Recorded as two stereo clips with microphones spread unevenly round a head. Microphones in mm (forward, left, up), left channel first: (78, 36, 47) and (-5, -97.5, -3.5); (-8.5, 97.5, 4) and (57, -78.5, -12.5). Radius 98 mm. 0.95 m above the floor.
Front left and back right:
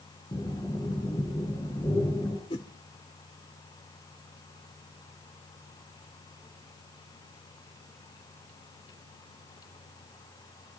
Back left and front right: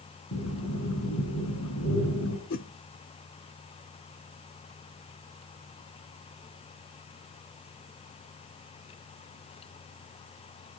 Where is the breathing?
135° left, 6.5 m.